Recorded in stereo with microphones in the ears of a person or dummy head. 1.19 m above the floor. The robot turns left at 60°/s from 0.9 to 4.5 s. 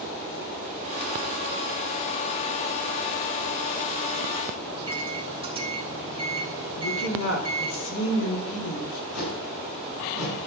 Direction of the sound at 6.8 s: 75° left (ahead or behind).